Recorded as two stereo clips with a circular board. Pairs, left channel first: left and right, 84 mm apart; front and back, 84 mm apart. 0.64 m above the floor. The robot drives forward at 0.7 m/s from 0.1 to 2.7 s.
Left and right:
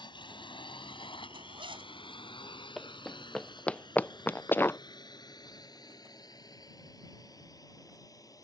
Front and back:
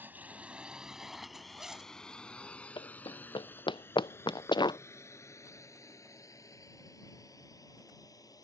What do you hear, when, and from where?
0.0 s a drone: 115° left; by 8.4 s 45° left
1.3 s a zipper: 95° right; by 1.9 s 100° right
2.8 s running footsteps: straight ahead; by 4.8 s 25° left